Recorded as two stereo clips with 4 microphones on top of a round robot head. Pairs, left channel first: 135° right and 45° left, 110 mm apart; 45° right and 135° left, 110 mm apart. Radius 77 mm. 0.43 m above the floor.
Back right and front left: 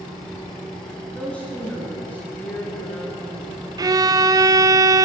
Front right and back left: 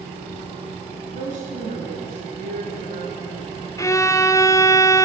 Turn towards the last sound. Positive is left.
turn(degrees=5)